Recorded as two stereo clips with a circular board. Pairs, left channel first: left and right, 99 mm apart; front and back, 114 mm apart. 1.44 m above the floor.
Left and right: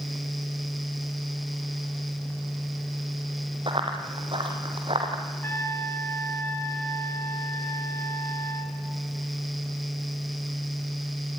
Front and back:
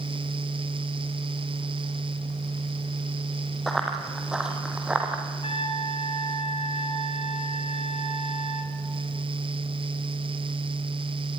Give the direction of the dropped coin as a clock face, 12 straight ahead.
I don't hear a dropped coin.